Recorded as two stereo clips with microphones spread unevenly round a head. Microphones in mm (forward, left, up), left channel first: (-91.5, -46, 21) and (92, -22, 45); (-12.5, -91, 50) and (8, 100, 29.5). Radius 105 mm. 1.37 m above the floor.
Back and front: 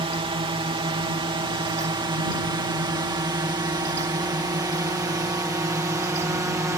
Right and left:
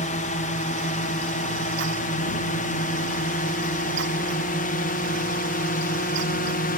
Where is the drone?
50° right; by 6.8 s 65° right.